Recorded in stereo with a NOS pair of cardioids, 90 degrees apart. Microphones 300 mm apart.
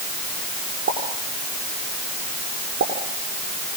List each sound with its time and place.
0.9 s a pop: 40° right, 9 m